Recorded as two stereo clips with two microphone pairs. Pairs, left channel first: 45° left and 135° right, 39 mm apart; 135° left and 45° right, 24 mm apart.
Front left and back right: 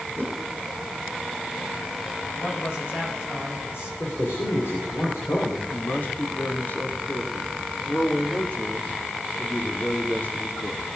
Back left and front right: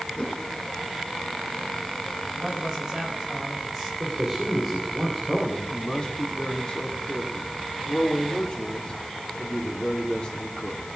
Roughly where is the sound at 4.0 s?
Ahead left.